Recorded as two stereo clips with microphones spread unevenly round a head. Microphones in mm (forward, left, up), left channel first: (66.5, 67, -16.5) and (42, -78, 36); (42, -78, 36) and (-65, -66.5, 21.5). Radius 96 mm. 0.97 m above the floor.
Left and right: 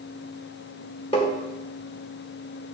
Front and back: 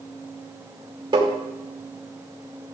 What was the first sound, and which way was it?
Tapping, 125° left.